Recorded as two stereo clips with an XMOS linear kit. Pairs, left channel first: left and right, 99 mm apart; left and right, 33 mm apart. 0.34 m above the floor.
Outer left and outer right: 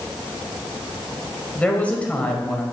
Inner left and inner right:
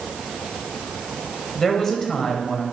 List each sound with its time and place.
1.6 s a woman speaking: 15° left (ahead or behind), 1.6 m